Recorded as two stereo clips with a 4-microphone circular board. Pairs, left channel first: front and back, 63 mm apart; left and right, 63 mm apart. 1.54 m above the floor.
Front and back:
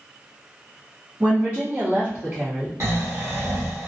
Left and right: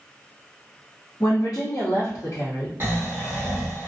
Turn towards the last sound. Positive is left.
turn(degrees=-140)